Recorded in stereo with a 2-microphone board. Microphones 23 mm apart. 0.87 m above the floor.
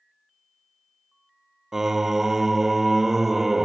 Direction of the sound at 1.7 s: 20° right (ahead or behind).